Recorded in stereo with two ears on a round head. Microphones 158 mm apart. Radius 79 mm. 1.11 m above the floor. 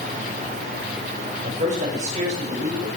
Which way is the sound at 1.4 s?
50° right (ahead or behind).